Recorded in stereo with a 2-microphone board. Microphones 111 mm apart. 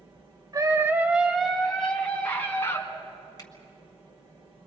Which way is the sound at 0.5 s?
35° right (ahead or behind).